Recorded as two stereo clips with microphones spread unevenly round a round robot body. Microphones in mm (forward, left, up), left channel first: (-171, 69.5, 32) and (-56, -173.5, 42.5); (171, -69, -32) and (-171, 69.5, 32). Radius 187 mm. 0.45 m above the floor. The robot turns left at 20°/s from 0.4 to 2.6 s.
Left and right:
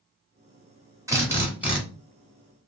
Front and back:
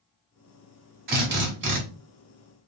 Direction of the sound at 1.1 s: 140° right.